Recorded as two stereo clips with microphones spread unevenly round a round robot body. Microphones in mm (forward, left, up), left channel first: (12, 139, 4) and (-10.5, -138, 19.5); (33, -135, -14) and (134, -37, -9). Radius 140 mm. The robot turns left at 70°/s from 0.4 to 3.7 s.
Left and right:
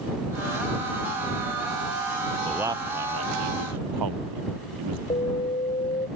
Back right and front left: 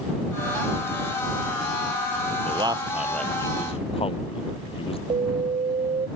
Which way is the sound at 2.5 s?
Straight ahead.